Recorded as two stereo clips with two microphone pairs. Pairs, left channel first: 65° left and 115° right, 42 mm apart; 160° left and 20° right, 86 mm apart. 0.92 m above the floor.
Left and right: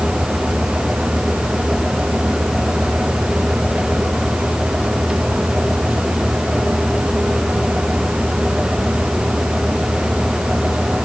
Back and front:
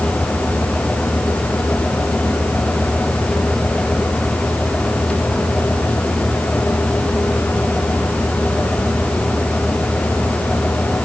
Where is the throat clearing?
No throat clearing in this recording.